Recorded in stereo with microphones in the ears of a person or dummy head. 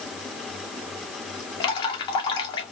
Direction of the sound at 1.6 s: 30° left (ahead or behind).